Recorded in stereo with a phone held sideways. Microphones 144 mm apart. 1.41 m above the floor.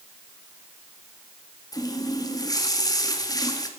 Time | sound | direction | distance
1.7 | a running tap | 25° left (ahead or behind) | 1.5 m